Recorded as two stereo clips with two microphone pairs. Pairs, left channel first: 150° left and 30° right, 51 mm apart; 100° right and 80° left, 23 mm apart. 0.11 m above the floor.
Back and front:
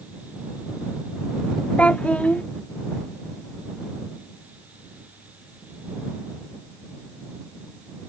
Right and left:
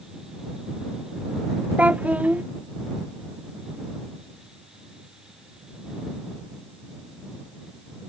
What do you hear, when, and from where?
1.8 s a child speaking: 85° left